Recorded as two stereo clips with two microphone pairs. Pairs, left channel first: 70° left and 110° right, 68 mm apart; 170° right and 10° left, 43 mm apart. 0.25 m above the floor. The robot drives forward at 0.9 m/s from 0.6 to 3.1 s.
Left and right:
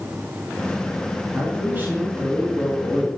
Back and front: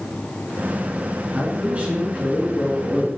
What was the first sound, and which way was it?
A man speaking, 45° right.